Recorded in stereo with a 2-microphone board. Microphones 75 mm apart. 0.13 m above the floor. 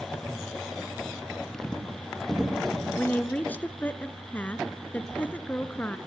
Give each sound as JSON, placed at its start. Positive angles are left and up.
{"t": 1.5, "sound": "footsteps", "side_deg": 10, "distance_m": 3.0}
{"t": 3.0, "sound": "a woman speaking", "side_deg": 20, "distance_m": 1.3}